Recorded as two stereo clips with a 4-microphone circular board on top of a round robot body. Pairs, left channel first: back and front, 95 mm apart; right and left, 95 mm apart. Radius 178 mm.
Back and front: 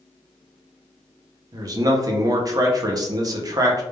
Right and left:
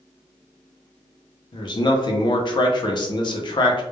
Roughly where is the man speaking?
Ahead right.